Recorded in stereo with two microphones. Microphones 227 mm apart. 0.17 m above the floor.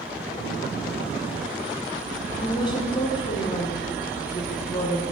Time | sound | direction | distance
2.4 | a woman speaking | 20° left (ahead or behind) | 1.3 m